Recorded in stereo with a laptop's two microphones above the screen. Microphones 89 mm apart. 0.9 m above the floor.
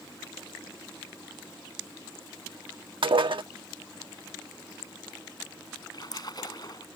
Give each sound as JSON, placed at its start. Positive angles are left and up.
{"t": 3.0, "sound": "dishes clattering", "side_deg": -70}
{"t": 5.9, "sound": "a splash", "side_deg": 50}